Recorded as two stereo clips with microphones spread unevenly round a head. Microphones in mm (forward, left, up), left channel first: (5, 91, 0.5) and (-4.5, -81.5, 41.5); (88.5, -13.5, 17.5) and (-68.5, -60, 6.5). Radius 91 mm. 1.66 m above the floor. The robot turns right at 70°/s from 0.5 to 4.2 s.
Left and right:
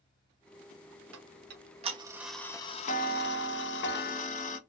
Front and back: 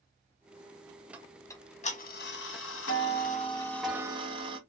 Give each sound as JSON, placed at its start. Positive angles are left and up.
{"t": 1.1, "sound": "ticking", "azimuth_deg": -85, "distance_m": 0.8}